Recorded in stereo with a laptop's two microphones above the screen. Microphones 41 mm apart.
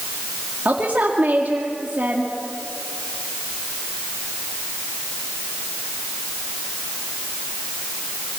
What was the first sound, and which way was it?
A woman speaking, 45° right (ahead or behind).